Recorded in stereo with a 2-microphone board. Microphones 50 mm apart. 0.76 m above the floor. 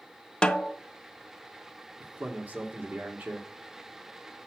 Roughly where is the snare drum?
Centre.